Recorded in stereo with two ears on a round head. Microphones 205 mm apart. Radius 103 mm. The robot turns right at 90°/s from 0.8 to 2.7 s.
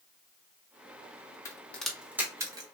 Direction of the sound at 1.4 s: 10° left (ahead or behind).